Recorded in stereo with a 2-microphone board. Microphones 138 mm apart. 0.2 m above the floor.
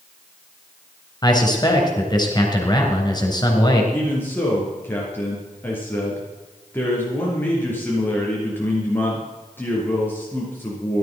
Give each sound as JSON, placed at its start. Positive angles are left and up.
{"t": 1.2, "sound": "a man speaking", "side_deg": 30, "distance_m": 3.5}
{"t": 3.9, "sound": "a man speaking", "side_deg": 15, "distance_m": 4.0}